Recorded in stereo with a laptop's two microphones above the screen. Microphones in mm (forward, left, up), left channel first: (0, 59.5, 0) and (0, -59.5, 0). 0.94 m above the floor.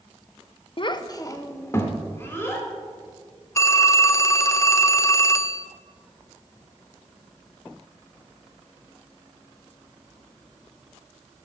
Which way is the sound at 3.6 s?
25° left (ahead or behind).